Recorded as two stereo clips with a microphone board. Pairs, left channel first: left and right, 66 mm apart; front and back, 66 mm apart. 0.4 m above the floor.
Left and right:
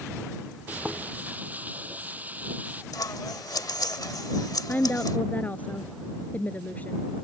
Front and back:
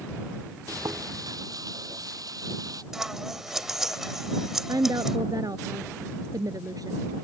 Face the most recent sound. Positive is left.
turn(degrees=155)